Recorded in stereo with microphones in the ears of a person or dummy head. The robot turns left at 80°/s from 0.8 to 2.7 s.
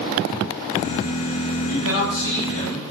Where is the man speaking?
90° left, 1.2 m; by 2.8 s 10° left, 1.2 m.